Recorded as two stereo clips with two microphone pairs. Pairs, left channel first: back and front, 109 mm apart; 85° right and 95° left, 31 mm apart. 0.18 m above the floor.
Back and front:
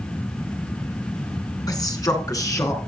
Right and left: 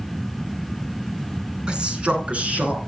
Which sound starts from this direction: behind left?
A man speaking, at 1.7 s.